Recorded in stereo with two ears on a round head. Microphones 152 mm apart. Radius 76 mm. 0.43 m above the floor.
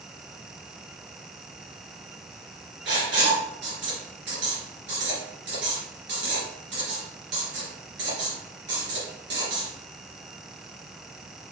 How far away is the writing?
About 3.5 m.